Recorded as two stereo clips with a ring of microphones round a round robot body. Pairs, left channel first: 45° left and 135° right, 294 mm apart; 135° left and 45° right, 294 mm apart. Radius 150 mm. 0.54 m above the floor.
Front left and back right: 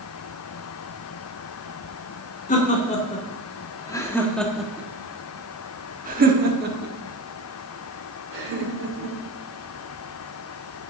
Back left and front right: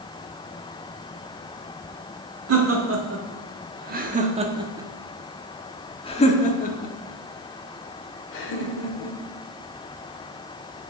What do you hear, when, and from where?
2.5 s laughter: 15° right, 2.0 m; by 9.2 s straight behind, 3 m